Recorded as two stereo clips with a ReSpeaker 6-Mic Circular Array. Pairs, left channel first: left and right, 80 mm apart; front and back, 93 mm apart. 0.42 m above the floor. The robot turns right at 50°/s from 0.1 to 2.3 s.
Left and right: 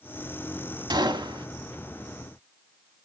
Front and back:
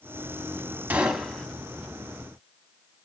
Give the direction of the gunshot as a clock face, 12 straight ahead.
4 o'clock.